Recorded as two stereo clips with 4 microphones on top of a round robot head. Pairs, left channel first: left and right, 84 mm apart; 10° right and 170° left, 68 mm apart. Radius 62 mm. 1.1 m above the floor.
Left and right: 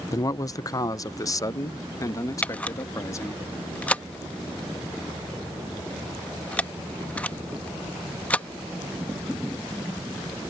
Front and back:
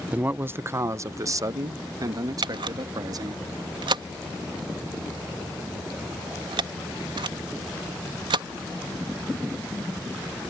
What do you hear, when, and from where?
0.1 s a man speaking: 110° left; by 3.4 s 145° left
2.4 s a camera shutter: 165° left